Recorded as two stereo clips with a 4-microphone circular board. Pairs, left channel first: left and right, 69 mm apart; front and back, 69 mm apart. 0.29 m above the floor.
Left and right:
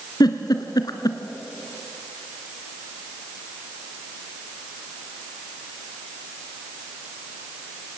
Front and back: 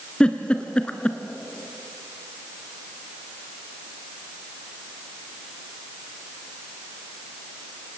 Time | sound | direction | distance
0.2 | a giggle | 75° left | 1.4 m